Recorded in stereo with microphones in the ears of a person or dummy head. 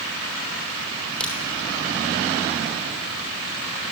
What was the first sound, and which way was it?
A crack, 5° left (ahead or behind).